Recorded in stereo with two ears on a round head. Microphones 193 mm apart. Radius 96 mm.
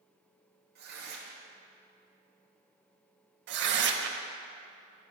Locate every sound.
0.8 s tearing paper: 50° right (ahead or behind), 1.3 m
3.5 s tearing paper: 55° right (ahead or behind), 0.6 m